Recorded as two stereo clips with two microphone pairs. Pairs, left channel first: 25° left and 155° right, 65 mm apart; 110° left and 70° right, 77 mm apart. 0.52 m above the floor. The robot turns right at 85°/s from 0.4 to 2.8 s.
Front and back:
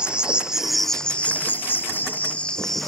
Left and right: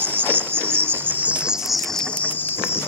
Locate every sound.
0.0 s an insect: 95° right; by 2.9 s 105° left